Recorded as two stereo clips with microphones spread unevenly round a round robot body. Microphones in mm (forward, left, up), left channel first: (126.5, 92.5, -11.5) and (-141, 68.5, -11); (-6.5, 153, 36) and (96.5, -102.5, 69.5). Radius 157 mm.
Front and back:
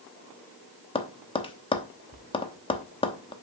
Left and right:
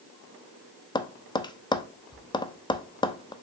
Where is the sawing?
I don't hear sawing.